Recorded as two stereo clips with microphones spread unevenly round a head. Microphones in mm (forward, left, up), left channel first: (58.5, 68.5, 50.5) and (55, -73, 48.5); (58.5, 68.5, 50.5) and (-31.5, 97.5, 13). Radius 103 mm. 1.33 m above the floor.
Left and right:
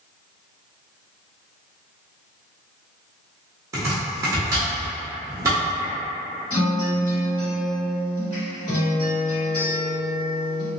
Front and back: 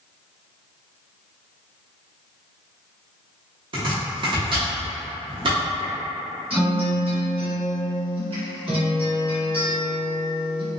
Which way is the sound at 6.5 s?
150° left.